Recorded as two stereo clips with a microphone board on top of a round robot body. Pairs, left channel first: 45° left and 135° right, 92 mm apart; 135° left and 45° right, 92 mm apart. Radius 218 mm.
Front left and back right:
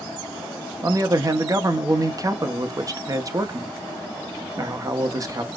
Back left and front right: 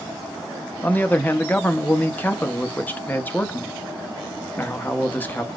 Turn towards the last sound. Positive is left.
turn(degrees=-165)